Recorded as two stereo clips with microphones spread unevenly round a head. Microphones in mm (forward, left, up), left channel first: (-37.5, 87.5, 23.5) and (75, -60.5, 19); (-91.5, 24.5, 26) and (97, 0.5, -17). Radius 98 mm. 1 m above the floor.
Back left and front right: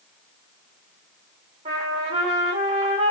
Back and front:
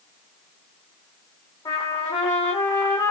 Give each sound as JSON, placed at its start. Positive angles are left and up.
{"t": 1.6, "sound": "a trumpet", "azimuth_deg": -115, "distance_m": 3.5}